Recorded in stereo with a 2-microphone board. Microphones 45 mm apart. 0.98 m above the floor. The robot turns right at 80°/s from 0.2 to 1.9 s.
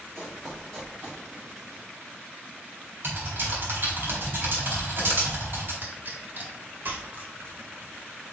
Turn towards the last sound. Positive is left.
turn(degrees=-45)  # may be behind; listen again after turning